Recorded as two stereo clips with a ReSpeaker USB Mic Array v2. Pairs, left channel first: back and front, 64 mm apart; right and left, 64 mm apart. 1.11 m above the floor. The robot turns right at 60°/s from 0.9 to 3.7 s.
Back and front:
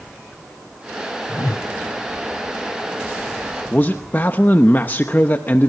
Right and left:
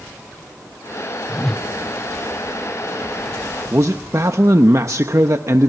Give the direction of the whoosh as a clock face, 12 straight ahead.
6 o'clock.